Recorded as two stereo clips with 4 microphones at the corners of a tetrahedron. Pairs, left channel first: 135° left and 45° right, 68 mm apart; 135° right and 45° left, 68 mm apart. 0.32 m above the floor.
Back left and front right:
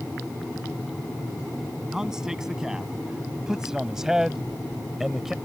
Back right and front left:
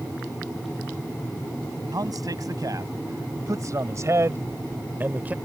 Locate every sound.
1.9 s a man speaking: 35° left; by 5.3 s 30° left